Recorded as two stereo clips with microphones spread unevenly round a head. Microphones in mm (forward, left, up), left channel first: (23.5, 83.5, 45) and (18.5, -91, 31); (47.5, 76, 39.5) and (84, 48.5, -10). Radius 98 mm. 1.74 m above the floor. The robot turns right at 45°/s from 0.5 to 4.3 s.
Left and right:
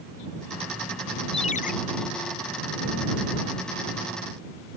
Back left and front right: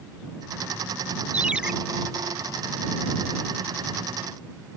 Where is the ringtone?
30° left; by 1.7 s 45° left.